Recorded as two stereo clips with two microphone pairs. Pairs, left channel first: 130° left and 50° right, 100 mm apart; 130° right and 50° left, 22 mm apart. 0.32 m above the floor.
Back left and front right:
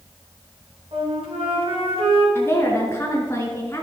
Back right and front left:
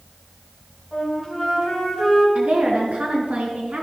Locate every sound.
0.9 s a flute: 45° right, 4 m
2.4 s a woman speaking: 65° left, 4 m